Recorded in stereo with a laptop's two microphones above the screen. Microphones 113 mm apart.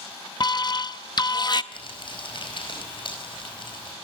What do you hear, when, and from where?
0.4 s an alarm: 40° left (ahead or behind), 0.6 m
1.7 s crumpling: 50° left (ahead or behind), 4.5 m